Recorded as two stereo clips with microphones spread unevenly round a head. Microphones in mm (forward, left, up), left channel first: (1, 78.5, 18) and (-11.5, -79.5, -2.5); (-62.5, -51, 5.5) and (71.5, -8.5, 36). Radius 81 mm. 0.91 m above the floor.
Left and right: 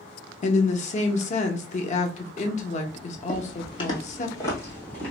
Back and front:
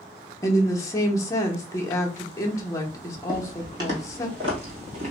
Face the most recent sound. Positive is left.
turn(degrees=15)